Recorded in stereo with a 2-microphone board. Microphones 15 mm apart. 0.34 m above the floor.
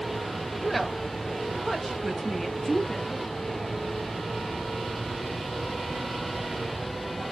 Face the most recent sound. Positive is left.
turn(degrees=15)  # may be behind; listen again after turning